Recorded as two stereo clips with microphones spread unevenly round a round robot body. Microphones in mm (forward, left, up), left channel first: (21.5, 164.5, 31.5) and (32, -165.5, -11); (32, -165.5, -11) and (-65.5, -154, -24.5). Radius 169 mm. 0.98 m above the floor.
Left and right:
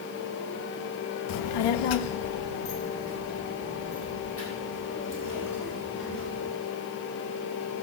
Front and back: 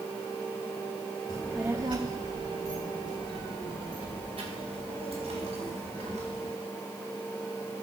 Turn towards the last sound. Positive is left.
turn(degrees=150)